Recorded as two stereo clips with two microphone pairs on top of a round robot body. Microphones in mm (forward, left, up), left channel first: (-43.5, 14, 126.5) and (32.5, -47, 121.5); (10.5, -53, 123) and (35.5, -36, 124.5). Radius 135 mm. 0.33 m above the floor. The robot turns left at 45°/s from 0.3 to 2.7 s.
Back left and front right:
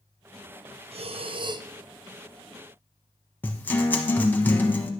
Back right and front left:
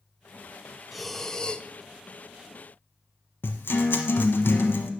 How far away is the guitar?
About 1.0 m.